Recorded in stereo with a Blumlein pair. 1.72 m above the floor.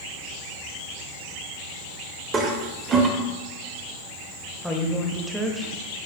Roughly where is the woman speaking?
Ahead.